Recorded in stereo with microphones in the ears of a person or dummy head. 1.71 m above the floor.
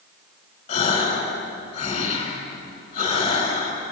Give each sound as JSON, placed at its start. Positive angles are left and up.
{"t": 0.7, "sound": "a gasp", "side_deg": 45, "distance_m": 7.5}